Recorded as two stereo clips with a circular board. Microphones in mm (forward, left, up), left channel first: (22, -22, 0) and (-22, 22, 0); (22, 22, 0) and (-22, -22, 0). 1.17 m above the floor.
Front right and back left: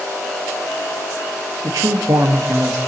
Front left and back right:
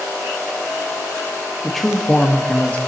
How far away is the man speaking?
About 1.8 m.